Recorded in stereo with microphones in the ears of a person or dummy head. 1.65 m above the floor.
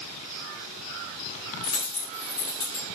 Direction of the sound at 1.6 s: 25° left (ahead or behind).